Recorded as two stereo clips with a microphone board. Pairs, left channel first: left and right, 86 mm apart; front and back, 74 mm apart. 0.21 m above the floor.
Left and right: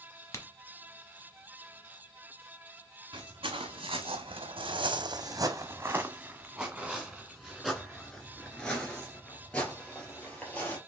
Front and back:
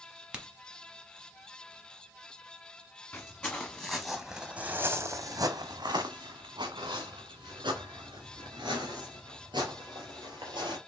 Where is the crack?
115° left, 0.8 m.